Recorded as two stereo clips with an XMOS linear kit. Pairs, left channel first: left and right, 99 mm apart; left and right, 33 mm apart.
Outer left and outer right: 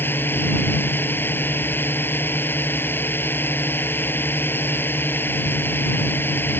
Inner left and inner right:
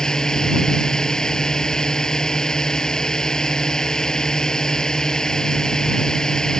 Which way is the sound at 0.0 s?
20° left (ahead or behind).